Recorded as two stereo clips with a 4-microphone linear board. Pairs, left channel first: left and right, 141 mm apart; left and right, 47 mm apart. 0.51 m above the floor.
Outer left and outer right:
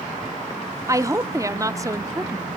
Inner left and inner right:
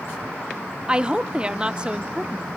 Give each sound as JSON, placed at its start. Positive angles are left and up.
{"t": 0.9, "sound": "a woman speaking", "side_deg": -20, "distance_m": 0.7}